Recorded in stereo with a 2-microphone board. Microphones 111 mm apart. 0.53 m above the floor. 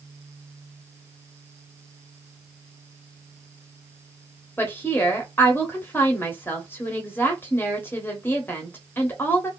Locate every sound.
4.6 s a woman speaking: 20° left (ahead or behind), 0.9 m